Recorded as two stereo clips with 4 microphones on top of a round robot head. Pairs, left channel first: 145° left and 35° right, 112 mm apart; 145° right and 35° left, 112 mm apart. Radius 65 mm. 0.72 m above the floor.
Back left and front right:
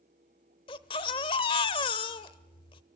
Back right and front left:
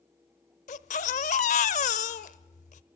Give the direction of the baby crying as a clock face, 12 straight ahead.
6 o'clock.